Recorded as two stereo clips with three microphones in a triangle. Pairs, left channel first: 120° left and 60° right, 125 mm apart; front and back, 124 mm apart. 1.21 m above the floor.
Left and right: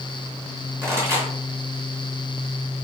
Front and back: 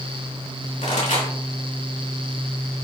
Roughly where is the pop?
Ahead.